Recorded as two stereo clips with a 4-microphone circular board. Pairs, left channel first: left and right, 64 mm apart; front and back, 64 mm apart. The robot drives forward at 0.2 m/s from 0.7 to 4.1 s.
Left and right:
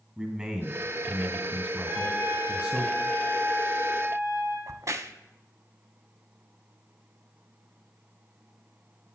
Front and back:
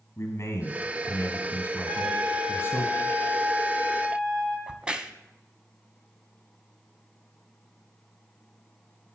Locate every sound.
0.2 s a man speaking: 20° right, 2 m; by 2.9 s 30° right, 1.9 m
1.9 s a trumpet: 150° right, 4.5 m; by 4.6 s 155° right, 5 m
4.7 s a crack: 110° right, 0.5 m